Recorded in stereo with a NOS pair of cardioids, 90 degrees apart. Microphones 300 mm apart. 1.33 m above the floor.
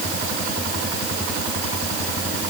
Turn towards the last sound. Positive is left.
No sound to turn to.